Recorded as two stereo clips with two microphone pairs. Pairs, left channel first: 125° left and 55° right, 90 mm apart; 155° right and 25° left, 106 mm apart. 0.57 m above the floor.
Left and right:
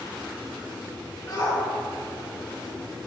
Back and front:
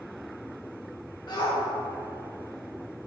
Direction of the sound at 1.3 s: 170° left.